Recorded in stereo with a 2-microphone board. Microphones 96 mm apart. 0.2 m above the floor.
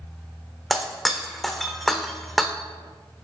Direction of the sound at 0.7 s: Centre (ahead or behind).